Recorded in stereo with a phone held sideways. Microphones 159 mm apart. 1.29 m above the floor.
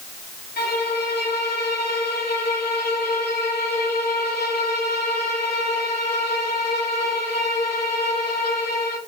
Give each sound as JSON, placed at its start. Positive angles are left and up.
{"t": 0.6, "sound": "a violin", "side_deg": 80, "distance_m": 2.5}